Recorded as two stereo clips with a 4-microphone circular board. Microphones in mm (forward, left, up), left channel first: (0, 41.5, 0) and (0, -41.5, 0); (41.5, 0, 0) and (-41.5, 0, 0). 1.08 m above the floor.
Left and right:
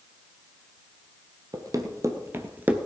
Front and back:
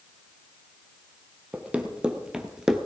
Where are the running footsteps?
110° right, 1.6 m; by 2.9 s 105° right, 1.0 m.